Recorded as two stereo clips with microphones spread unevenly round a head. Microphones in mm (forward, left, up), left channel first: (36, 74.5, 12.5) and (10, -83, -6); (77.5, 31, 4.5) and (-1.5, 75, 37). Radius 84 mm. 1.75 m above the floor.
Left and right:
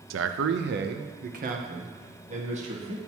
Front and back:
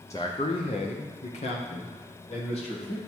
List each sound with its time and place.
0.1 s a man speaking: 105° right, 0.6 m; by 3.0 s 50° right, 2 m